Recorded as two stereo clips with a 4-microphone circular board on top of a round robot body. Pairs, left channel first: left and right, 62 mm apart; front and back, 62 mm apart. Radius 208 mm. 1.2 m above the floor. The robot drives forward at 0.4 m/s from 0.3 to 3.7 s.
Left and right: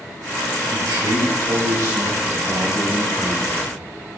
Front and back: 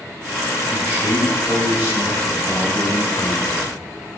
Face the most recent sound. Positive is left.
turn(degrees=-115)